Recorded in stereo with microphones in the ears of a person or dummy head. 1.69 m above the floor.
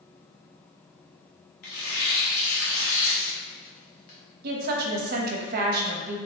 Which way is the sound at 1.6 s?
45° left (ahead or behind).